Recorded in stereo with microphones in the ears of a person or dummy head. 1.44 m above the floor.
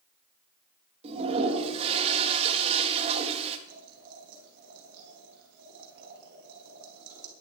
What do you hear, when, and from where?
1.0 s a toilet flushing: 30° right (ahead or behind), 1.7 m
3.7 s boiling: 60° right (ahead or behind), 5 m